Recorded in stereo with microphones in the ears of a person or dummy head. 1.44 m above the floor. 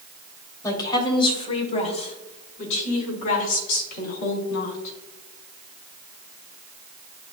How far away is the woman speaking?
About 2.5 m.